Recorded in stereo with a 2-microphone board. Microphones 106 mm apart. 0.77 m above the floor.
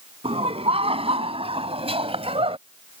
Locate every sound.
0.2 s laughter: 65° right (ahead or behind)